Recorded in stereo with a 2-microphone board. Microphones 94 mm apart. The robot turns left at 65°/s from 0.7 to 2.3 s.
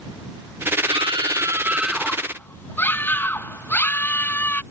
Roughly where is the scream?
Right.